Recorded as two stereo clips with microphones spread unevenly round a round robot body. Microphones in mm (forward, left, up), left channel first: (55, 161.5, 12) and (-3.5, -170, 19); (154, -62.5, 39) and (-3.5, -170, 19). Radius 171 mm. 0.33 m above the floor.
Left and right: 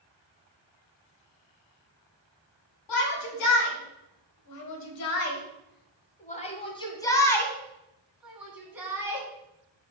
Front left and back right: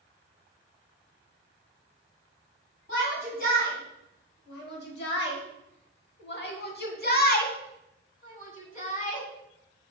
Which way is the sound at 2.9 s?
95° left.